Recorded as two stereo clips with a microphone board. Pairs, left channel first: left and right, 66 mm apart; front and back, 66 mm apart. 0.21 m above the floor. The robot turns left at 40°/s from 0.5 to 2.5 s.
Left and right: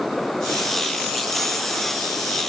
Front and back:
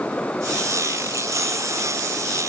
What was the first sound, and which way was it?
Only background noise.